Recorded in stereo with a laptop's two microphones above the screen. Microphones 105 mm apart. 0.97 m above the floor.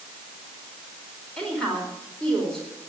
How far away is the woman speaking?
About 4 m.